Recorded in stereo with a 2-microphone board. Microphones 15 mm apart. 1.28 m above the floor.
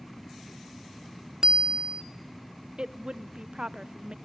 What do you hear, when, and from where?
1.4 s a bicycle bell: 50° right (ahead or behind), 2 m
2.8 s a woman speaking: 60° right (ahead or behind), 0.9 m